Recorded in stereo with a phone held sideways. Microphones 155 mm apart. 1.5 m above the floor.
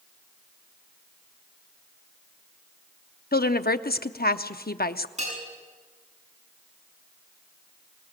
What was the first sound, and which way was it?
A woman speaking, 80° left.